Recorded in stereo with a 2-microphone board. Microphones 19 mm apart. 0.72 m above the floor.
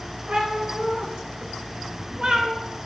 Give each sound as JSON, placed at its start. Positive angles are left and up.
{"t": 0.3, "sound": "a cat meowing", "side_deg": -75, "distance_m": 0.9}